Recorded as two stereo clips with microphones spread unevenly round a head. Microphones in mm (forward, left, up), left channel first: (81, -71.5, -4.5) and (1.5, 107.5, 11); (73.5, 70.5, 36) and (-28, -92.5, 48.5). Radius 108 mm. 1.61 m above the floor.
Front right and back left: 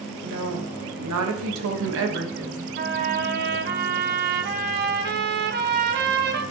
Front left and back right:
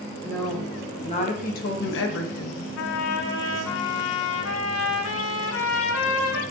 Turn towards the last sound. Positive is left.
turn(degrees=85)